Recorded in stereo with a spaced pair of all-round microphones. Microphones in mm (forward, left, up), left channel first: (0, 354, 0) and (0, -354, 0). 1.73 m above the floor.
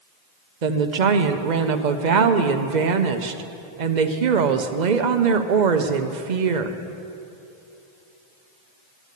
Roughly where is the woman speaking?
Right.